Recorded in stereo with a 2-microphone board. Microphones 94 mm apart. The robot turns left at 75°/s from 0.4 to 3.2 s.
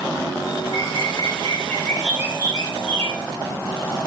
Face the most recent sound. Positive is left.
turn(degrees=-95)